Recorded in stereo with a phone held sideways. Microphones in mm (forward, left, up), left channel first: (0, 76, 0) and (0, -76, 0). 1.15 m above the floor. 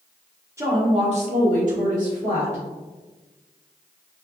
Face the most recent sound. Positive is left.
turn(degrees=-50)  # may be behind; listen again after turning